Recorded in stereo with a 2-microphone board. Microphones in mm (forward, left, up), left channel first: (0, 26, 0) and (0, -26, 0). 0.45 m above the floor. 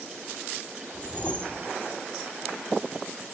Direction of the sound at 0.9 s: 25° left (ahead or behind).